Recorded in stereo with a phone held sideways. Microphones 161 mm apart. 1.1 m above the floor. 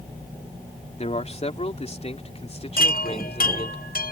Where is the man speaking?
45° left (ahead or behind); by 3.8 s 40° left (ahead or behind).